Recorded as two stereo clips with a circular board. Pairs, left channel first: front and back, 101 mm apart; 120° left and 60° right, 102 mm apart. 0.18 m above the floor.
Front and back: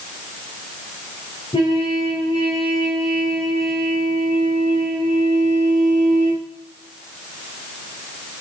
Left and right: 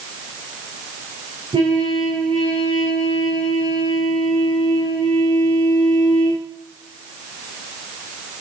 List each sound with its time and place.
1.5 s a trumpet: 25° right, 7.5 m